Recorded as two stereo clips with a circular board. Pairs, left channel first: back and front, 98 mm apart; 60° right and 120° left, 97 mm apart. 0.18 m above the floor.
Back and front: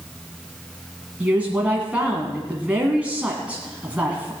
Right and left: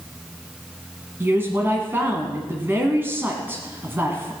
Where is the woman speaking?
70° left, 1.8 m.